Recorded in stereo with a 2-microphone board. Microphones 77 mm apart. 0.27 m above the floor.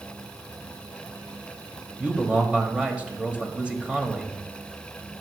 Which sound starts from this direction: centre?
A man speaking, at 2.0 s.